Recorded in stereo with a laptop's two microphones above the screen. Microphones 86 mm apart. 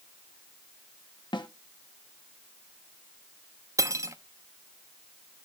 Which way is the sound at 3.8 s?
40° right (ahead or behind).